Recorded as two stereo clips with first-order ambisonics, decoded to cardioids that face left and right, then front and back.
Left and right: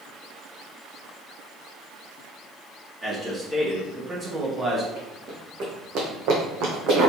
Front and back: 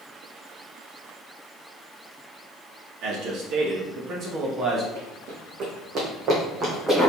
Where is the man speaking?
165° right, 1.5 m; by 4.8 s 135° right, 0.9 m.